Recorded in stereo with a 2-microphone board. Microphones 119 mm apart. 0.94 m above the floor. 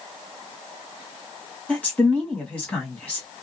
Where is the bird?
No bird in this recording.